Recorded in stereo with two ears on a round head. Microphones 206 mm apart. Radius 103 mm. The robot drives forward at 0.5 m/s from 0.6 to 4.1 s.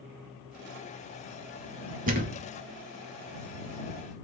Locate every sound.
2.1 s a thud: 35° right (ahead or behind), 1.1 m